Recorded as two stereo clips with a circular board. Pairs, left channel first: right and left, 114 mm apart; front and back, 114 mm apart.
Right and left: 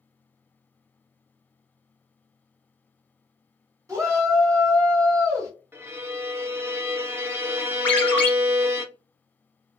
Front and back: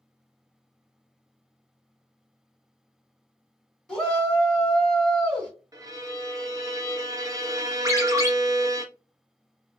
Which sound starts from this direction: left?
A shout, at 3.9 s.